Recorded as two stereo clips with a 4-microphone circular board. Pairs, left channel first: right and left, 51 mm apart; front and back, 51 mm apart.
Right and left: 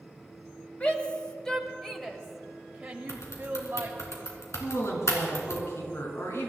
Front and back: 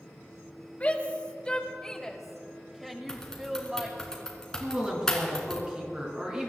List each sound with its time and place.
0.8 s a shout: 40° right, 1.7 m; by 4.1 s 125° left, 1.8 m
3.1 s typing on a keyboard: 80° right, 2.5 m
4.6 s a woman speaking: 110° right, 4 m